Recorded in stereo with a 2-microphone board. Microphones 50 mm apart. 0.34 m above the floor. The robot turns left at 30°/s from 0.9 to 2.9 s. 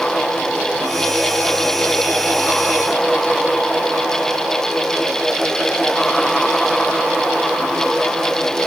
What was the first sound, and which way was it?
Only background noise.